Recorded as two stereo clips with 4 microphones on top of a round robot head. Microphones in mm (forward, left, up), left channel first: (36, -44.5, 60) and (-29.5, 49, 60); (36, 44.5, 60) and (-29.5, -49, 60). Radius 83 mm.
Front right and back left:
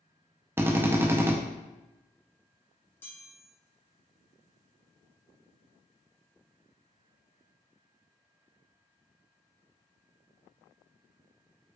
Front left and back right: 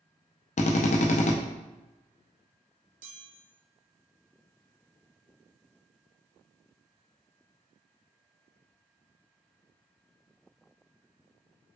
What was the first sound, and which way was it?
A drill, 55° left.